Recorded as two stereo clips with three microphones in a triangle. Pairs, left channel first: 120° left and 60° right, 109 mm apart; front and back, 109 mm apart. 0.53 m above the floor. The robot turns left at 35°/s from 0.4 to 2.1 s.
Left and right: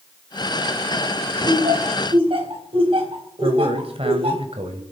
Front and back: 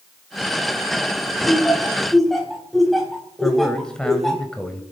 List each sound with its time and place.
1.4 s laughter: 65° right, 4 m; by 4.4 s 90° right, 4 m
3.4 s a man speaking: 85° right, 2 m